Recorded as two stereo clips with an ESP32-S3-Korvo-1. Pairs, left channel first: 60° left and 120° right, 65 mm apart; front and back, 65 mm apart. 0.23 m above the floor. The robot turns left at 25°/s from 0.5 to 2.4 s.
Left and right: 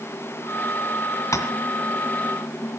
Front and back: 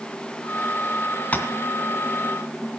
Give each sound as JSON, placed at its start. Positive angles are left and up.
{"t": 1.3, "sound": "tapping", "azimuth_deg": 60, "distance_m": 2.5}